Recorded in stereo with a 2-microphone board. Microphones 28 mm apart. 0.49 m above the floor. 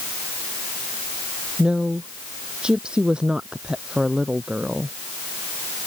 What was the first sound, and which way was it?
A woman speaking, 30° right (ahead or behind).